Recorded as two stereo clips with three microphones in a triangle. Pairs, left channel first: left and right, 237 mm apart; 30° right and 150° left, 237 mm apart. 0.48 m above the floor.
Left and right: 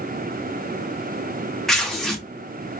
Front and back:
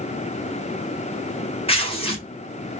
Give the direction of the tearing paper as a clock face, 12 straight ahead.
12 o'clock.